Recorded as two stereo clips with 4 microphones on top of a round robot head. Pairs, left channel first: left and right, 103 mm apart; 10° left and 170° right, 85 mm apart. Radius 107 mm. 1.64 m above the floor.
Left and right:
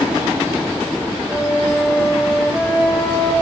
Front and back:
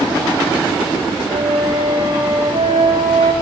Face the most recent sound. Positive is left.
turn(degrees=180)